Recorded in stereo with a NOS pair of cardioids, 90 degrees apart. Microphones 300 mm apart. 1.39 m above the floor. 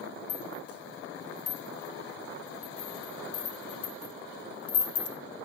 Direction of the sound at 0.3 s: 50° left.